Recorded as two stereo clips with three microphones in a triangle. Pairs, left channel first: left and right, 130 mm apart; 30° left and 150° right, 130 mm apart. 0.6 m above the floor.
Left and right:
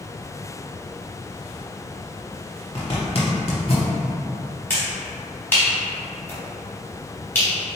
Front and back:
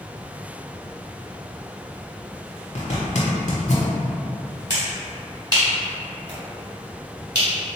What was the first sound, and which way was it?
A zipper, 55° left.